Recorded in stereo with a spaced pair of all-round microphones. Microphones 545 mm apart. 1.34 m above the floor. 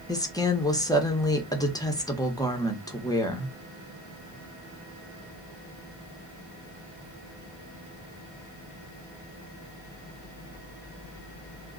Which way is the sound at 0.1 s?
5° left (ahead or behind).